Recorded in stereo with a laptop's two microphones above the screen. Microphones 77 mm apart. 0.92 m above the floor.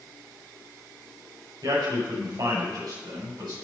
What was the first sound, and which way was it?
A man speaking, 75° right (ahead or behind).